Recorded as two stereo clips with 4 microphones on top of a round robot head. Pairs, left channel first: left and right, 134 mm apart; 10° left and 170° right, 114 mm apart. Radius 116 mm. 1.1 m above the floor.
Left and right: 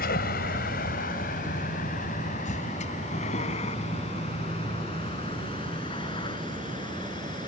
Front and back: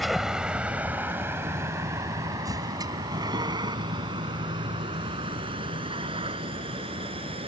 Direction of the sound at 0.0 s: 100° left.